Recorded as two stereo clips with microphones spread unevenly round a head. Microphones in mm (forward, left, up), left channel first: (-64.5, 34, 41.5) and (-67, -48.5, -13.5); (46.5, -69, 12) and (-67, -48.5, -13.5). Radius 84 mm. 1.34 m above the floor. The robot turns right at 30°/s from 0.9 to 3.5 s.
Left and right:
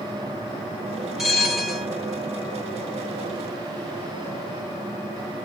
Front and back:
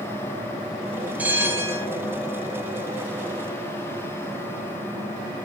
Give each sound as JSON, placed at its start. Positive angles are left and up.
{"t": 1.2, "sound": "a bell", "azimuth_deg": 80, "distance_m": 0.7}